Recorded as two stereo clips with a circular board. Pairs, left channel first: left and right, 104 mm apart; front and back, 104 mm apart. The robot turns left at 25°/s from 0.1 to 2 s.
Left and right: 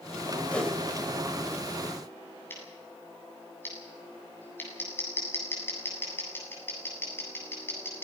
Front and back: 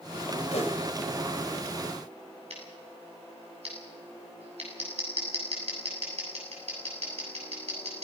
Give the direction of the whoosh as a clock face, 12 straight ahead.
12 o'clock.